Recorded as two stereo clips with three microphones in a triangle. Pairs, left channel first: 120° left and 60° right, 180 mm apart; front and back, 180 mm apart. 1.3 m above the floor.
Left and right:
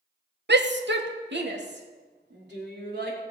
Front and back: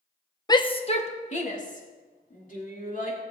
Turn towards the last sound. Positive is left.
turn(degrees=-40)